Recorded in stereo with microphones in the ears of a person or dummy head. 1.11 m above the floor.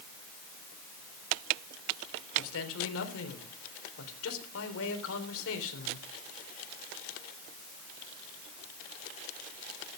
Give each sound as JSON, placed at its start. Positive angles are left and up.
{"t": 2.4, "sound": "a man speaking", "side_deg": 80, "distance_m": 4.0}